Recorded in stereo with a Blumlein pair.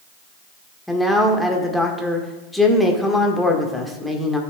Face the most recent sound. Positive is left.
turn(degrees=5)